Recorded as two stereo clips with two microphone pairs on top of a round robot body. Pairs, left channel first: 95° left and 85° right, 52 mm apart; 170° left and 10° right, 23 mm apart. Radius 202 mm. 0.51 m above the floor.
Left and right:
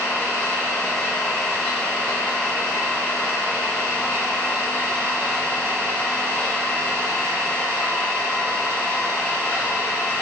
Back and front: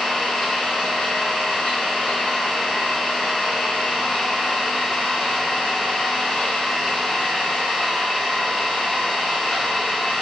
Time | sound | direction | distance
0.0 | an engine running | 165° left | 1.0 m